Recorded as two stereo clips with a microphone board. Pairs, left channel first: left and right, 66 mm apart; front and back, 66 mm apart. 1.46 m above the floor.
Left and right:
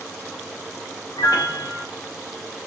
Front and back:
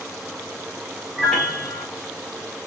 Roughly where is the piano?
Left.